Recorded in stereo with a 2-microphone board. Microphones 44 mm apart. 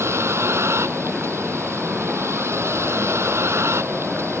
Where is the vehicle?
85° right; by 4.4 s 90° right.